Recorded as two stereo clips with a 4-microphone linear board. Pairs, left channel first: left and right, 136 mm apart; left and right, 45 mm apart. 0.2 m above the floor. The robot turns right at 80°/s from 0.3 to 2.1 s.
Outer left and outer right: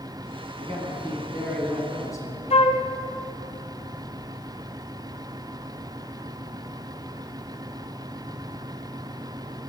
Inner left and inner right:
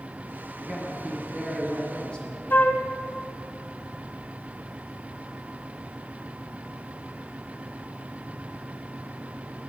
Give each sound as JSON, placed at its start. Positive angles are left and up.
{"t": 0.6, "sound": "a man speaking", "azimuth_deg": -85, "distance_m": 1.8}
{"t": 2.5, "sound": "a flute", "side_deg": 50, "distance_m": 0.6}